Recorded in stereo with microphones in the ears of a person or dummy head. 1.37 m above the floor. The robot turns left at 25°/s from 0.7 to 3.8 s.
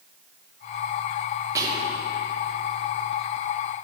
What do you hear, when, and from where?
1.6 s whispering: 20° right (ahead or behind), 1.6 m; by 2.0 s 30° right (ahead or behind), 1.6 m